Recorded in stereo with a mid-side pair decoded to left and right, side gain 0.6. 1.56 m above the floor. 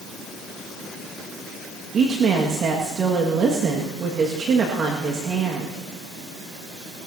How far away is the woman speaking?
About 1.9 m.